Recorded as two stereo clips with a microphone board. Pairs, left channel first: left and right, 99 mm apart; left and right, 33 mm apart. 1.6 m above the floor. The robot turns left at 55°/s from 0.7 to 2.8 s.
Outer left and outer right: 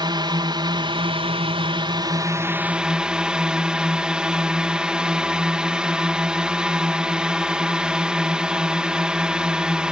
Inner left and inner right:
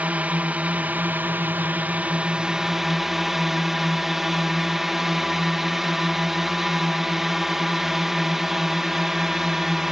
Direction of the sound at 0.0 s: 55° right.